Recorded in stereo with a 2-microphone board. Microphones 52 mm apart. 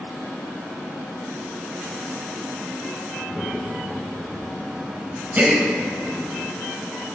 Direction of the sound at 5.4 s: 30° right (ahead or behind).